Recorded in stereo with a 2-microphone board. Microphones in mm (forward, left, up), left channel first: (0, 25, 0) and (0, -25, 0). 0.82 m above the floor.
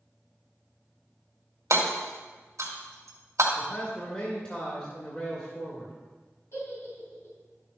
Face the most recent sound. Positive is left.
turn(degrees=60)  # may be behind; listen again after turning